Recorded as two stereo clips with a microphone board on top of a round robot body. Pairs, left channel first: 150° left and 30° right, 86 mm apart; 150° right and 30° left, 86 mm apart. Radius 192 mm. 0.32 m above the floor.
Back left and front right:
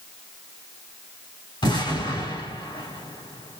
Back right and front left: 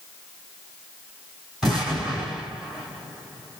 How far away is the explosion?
About 3.5 m.